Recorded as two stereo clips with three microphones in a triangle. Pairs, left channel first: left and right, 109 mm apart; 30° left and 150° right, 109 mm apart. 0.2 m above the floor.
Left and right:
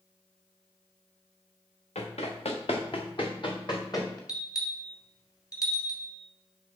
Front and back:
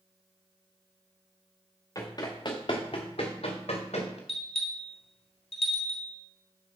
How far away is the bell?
About 1.8 m.